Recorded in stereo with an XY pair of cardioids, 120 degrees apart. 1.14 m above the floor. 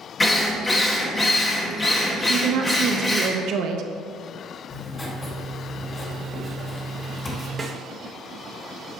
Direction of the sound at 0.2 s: 20° left.